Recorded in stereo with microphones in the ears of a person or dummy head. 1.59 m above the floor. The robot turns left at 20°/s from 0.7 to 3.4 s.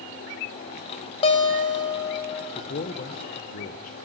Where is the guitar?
35° left (ahead or behind), 1.3 m; by 2.5 s 15° left (ahead or behind), 1.3 m.